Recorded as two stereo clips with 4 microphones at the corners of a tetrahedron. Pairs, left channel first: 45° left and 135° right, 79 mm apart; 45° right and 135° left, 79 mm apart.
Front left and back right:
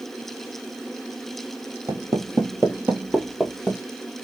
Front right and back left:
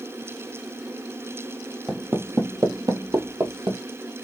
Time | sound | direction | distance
1.9 | footsteps | 160° right | 1.0 m